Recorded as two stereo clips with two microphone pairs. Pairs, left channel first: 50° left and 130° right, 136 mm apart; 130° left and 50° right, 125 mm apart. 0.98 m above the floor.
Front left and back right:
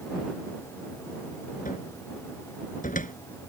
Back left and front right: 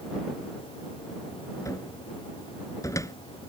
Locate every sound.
1.6 s a cupboard door: 65° left